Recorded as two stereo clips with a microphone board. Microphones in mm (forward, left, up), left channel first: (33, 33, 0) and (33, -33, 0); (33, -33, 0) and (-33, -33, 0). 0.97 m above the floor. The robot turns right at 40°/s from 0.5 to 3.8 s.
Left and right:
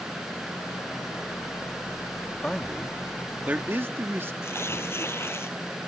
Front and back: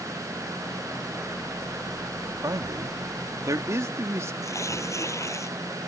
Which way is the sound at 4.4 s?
40° left.